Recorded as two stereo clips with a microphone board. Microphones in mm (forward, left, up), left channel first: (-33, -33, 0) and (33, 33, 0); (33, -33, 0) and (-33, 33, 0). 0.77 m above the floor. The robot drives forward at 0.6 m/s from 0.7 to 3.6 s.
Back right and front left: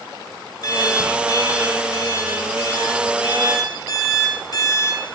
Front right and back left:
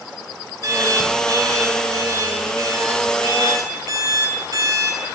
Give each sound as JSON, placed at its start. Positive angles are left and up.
{"t": 0.6, "sound": "an alarm clock", "azimuth_deg": 180, "distance_m": 5.5}